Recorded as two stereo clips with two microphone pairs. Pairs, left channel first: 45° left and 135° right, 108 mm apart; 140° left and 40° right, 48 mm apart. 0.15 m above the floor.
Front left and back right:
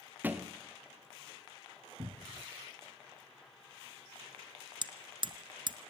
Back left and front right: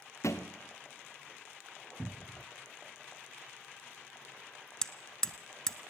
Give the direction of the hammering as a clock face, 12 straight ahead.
5 o'clock.